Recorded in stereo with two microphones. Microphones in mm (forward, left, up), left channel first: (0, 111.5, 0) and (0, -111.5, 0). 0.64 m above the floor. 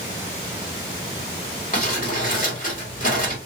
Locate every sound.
1.7 s crumpling: 40° left (ahead or behind), 1.7 m